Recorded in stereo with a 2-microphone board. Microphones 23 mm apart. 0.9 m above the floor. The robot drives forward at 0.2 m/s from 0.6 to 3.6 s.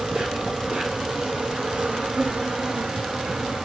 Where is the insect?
60° right (ahead or behind), 1.9 m; by 3.6 s 65° right (ahead or behind), 1.8 m.